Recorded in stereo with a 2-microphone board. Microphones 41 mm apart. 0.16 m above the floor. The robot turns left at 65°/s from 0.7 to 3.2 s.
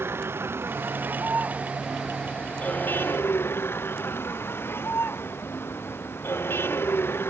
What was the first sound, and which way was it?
A vehicle, 95° right.